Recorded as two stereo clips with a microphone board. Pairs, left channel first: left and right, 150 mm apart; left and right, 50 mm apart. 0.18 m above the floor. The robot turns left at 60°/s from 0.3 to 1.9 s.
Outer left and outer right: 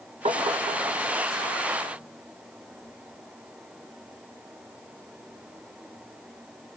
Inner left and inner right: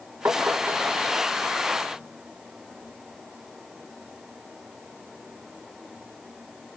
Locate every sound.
0.2 s tapping: 45° right (ahead or behind), 1.8 m; by 1.0 s 60° right (ahead or behind), 1.8 m